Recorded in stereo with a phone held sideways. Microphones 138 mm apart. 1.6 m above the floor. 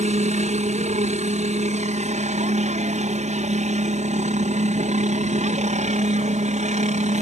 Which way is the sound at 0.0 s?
60° right (ahead or behind).